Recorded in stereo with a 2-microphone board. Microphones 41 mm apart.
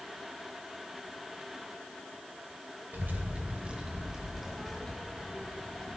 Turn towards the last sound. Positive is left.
turn(degrees=30)  # may be behind; listen again after turning